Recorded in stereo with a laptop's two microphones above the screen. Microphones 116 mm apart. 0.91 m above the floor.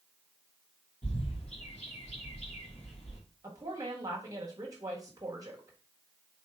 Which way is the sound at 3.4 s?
30° right (ahead or behind).